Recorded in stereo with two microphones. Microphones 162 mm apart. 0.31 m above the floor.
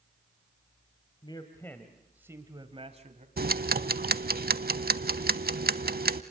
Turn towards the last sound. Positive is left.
turn(degrees=-75)  # may be behind; listen again after turning